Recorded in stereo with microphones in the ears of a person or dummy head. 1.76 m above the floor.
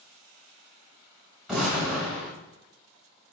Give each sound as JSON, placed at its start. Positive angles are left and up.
{"t": 1.5, "sound": "an explosion", "side_deg": -10, "distance_m": 1.3}